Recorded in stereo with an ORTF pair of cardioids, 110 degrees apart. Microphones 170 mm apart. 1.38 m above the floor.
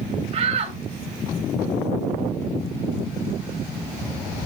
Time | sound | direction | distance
0.3 | a shout | 40° right | 2.5 m